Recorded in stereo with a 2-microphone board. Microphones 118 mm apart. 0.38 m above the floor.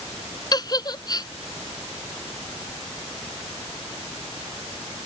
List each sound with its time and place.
0.5 s a giggle: 35° left (ahead or behind)